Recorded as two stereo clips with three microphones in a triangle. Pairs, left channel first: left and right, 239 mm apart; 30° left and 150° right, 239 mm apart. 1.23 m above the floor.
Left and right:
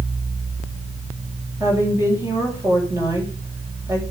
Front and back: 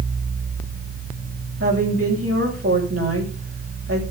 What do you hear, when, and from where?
1.6 s a woman speaking: 170° right, 7 m